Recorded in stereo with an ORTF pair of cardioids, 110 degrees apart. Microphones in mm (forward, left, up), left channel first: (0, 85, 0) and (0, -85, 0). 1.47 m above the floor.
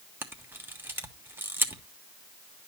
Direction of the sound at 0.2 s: 15° right.